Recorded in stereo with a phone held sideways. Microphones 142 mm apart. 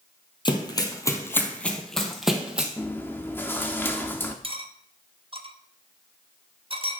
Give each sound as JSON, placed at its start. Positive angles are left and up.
{"t": 0.5, "sound": "running footsteps", "side_deg": 35, "distance_m": 1.5}
{"t": 2.8, "sound": "chewing", "side_deg": 15, "distance_m": 1.0}
{"t": 4.4, "sound": "cutlery clinking", "side_deg": -40, "distance_m": 0.8}